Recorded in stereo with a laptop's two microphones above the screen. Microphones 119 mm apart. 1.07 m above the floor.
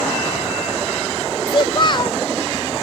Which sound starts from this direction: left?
A child speaking, at 1.5 s.